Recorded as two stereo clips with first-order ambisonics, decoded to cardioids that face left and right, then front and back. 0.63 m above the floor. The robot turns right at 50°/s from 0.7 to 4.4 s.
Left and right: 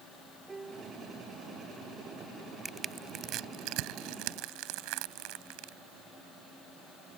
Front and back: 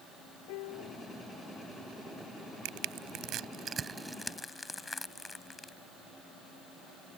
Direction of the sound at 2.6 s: 165° right.